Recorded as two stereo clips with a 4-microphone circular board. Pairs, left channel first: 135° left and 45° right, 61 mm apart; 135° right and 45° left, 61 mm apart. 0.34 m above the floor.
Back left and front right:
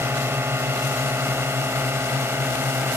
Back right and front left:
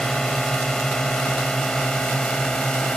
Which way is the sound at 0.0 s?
55° right.